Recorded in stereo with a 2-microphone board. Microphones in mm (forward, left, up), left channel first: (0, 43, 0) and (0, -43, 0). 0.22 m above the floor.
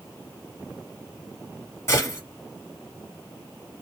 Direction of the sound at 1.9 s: 30° left (ahead or behind).